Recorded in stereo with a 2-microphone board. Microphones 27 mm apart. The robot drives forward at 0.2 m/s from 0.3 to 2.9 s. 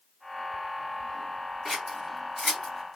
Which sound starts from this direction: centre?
Scissors, at 1.6 s.